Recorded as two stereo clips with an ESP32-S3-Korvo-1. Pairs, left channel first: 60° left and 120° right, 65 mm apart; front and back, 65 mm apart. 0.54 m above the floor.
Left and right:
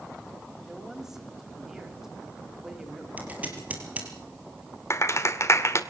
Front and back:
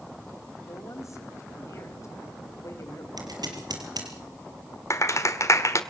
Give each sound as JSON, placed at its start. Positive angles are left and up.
{"t": 0.6, "sound": "a woman speaking", "azimuth_deg": -35, "distance_m": 3.5}
{"t": 3.2, "sound": "scissors", "azimuth_deg": 175, "distance_m": 5.0}
{"t": 4.9, "sound": "a clap", "azimuth_deg": 30, "distance_m": 1.7}